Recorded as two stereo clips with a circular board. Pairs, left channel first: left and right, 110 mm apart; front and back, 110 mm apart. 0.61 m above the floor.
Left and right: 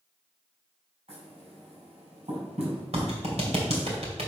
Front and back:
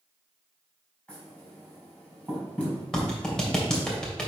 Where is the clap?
80° right, 2 m.